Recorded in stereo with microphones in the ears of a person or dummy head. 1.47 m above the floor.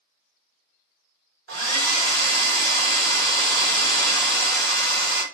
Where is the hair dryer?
80° right, 1.1 m.